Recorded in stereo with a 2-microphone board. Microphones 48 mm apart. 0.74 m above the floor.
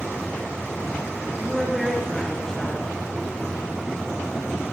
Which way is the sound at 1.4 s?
5° left (ahead or behind).